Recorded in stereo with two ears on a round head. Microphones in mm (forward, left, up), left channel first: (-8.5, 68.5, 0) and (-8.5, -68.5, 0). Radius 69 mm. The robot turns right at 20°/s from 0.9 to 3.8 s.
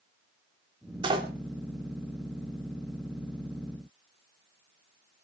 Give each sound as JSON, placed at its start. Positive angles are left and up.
{"t": 1.0, "sound": "a door slam", "side_deg": -35, "distance_m": 2.0}